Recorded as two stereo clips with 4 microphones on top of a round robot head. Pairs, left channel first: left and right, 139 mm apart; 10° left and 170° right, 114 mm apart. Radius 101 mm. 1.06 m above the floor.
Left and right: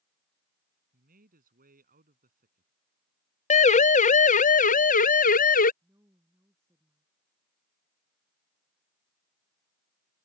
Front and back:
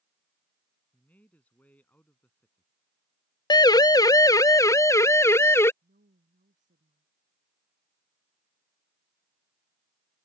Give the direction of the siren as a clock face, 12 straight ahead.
10 o'clock.